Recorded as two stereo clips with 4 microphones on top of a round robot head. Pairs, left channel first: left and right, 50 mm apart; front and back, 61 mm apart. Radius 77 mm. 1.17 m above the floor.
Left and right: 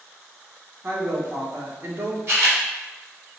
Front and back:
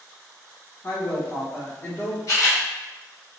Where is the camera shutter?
50° right, 0.8 m.